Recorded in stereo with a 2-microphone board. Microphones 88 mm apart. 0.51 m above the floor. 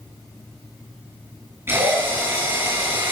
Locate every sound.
1.7 s a drill: 30° right (ahead or behind), 7.5 m